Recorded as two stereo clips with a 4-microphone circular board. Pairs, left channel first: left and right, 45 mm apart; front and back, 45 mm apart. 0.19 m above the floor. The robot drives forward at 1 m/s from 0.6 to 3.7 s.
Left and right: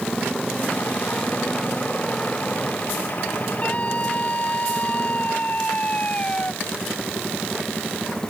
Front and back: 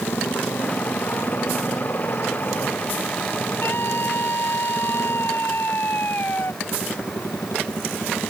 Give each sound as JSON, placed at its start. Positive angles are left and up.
{"t": 0.0, "sound": "a motorcycle", "azimuth_deg": 10}
{"t": 3.6, "sound": "a scream", "azimuth_deg": 35}